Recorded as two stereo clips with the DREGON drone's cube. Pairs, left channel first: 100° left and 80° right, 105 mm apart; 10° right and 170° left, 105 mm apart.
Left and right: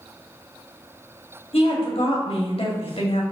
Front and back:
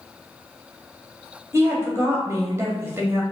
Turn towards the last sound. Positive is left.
turn(degrees=110)